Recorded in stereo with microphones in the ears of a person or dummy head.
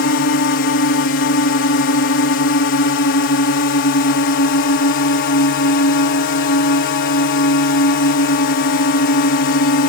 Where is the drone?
60° left (ahead or behind).